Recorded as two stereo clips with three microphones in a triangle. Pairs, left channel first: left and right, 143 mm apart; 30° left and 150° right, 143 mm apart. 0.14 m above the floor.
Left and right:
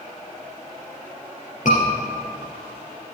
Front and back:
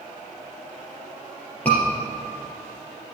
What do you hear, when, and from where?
1.6 s a scream: 110° left, 3.5 m